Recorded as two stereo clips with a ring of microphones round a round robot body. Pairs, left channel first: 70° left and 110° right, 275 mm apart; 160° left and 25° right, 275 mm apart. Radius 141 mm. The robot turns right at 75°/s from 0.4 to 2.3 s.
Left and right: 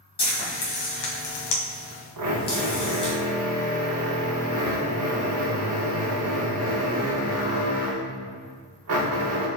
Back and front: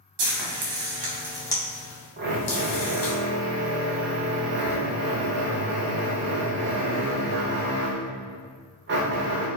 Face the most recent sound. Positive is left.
turn(degrees=-75)